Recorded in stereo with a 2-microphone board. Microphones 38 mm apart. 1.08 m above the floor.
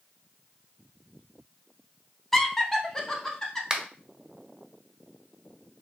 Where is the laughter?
10° left (ahead or behind), 0.6 m; by 3.6 s 15° left (ahead or behind), 1.5 m.